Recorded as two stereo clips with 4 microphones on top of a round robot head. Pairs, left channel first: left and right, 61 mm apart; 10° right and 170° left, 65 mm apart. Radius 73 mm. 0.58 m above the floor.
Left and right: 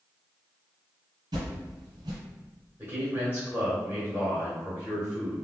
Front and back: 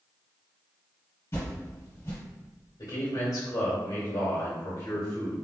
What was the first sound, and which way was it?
A whoosh, 65° right.